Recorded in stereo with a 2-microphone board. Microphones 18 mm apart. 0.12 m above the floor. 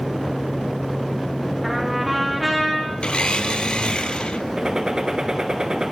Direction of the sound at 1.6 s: Centre (ahead or behind).